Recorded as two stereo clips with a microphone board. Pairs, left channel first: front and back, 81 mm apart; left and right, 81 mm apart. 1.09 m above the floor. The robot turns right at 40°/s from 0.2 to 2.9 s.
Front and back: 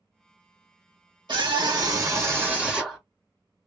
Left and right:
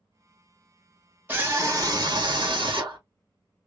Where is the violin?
No violin in this recording.